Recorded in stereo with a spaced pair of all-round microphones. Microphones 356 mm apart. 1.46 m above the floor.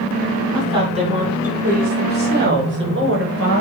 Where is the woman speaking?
15° right (ahead or behind), 5 m; by 3.6 s 40° right (ahead or behind), 6 m.